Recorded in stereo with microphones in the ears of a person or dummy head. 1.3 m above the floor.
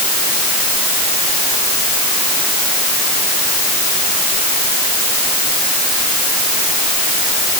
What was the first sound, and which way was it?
Only background noise.